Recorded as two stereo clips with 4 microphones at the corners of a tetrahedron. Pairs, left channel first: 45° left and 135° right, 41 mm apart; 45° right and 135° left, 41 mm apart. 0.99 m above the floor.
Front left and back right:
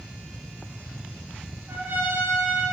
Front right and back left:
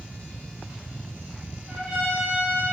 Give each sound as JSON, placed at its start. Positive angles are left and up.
{"t": 1.7, "sound": "a trumpet", "azimuth_deg": -155, "distance_m": 1.3}